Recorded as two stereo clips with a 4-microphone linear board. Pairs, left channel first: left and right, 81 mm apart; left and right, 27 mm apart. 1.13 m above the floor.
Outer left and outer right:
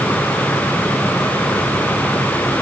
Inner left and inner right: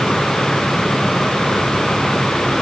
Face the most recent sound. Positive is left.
No sound to turn to.